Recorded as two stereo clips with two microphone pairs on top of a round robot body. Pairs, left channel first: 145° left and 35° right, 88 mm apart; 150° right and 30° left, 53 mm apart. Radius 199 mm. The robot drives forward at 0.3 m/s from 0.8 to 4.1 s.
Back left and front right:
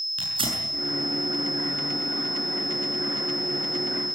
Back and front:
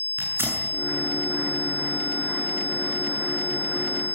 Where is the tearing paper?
15° right, 7.5 m.